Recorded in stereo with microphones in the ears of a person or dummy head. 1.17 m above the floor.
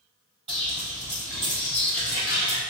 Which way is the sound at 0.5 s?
20° right (ahead or behind).